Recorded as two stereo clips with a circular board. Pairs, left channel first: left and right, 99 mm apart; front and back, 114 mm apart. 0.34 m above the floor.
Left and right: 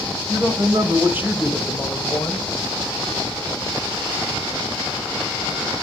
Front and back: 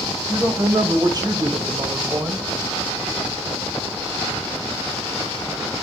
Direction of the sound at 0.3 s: 120° right.